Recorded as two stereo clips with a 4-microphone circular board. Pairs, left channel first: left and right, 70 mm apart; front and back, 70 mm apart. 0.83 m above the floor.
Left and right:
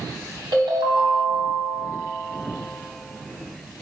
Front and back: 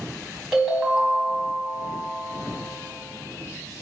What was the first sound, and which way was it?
A ringtone, 95° right.